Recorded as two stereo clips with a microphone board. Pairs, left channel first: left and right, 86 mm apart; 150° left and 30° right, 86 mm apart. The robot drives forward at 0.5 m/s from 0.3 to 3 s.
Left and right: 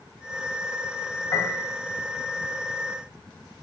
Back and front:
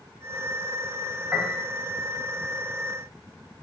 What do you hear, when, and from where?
1.3 s a piano: 45° left, 2.5 m; by 1.7 s 50° left, 2.5 m